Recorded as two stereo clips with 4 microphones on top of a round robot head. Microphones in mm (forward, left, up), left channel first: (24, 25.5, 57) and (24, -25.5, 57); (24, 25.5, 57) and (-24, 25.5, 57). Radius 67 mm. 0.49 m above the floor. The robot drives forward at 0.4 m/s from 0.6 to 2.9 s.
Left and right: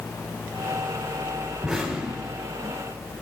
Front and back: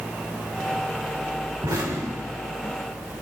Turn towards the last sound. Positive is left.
turn(degrees=-175)